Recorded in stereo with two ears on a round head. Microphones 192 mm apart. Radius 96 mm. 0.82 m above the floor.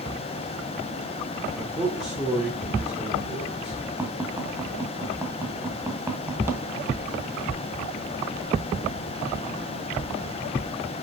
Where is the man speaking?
Centre (ahead or behind), 2.5 m.